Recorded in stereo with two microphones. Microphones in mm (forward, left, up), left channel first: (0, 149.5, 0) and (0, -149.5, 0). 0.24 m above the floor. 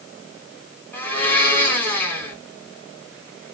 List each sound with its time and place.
0.9 s a blender: 5° left (ahead or behind), 2 m